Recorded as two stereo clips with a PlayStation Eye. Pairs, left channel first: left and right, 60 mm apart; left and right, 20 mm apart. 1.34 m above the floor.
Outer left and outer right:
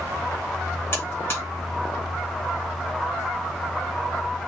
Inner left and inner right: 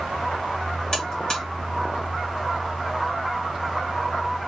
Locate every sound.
0.9 s a buzzer: 40° left (ahead or behind), 1.3 m